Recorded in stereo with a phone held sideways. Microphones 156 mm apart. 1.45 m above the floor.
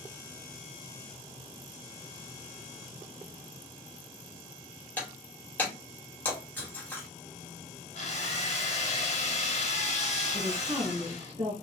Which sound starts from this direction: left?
A drill, at 8.0 s.